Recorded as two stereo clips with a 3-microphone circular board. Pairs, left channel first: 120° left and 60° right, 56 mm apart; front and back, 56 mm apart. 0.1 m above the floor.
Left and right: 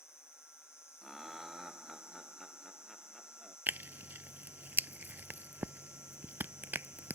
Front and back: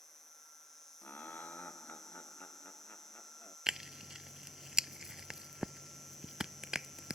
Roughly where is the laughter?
Ahead left.